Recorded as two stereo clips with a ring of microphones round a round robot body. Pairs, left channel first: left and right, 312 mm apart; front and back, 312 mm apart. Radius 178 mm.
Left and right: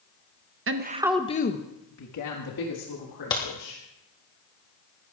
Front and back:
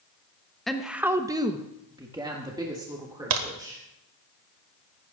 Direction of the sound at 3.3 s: 170° left.